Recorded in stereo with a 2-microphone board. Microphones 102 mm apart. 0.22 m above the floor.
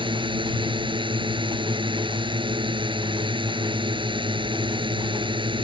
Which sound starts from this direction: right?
A drone, at 0.0 s.